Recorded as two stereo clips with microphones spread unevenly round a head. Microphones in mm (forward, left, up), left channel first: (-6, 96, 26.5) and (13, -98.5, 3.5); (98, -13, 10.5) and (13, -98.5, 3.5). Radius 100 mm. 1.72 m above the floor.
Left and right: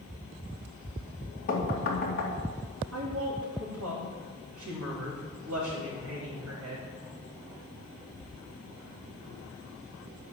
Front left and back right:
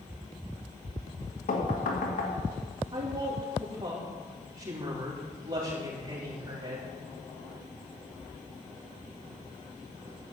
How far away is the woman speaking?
About 4 m.